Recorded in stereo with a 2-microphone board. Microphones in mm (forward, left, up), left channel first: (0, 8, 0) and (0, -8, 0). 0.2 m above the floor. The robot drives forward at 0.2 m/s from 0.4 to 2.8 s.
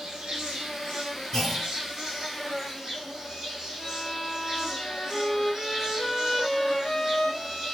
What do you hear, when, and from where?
0.0 s an insect: 50° right (ahead or behind), 0.9 m; by 7.7 s 35° right (ahead or behind), 1.2 m
1.3 s a clunk: 30° left (ahead or behind), 2 m
3.8 s a violin: 30° left (ahead or behind), 1.2 m